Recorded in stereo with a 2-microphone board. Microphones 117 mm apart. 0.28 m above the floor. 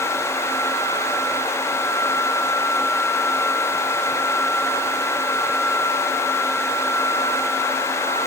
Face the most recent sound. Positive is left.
No sound to turn to.